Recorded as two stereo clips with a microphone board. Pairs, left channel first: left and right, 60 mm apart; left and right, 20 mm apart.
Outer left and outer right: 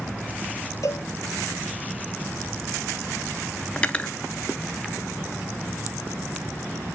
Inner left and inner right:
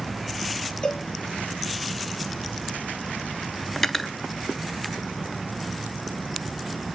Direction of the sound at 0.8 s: 60° left (ahead or behind).